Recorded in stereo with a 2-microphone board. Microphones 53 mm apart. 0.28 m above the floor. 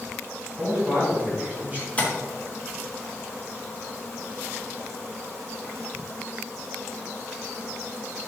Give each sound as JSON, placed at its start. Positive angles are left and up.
{"t": 0.6, "sound": "a man speaking", "side_deg": -30, "distance_m": 2.5}
{"t": 2.0, "sound": "tapping", "side_deg": 25, "distance_m": 2.5}